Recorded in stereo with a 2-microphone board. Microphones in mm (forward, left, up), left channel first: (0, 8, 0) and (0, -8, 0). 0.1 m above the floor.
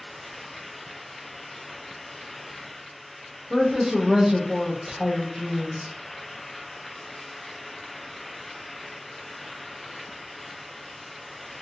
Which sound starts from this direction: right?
A woman speaking, at 3.5 s.